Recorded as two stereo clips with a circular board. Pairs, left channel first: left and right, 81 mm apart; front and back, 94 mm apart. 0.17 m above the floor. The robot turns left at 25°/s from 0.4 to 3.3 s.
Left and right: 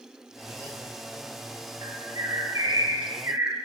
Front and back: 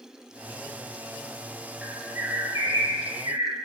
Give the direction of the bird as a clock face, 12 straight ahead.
4 o'clock.